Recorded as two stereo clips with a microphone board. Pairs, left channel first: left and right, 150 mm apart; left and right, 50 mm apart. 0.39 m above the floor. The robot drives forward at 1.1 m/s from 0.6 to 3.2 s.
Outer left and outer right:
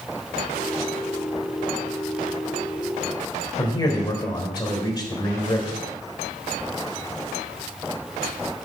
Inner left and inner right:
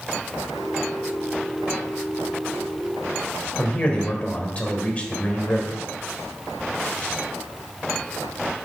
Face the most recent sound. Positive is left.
turn(degrees=25)  # may be behind; listen again after turning